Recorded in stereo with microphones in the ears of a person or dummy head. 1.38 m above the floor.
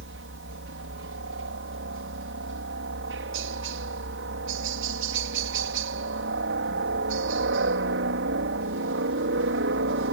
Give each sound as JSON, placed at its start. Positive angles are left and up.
{"t": 0.0, "sound": "a helicopter", "side_deg": -60}